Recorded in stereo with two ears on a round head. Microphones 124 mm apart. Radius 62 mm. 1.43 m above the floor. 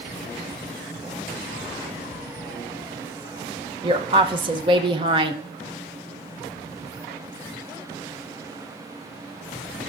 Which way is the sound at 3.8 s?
35° right (ahead or behind).